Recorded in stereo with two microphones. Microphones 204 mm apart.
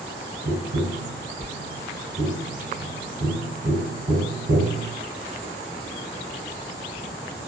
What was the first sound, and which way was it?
Tapping, 65° right (ahead or behind).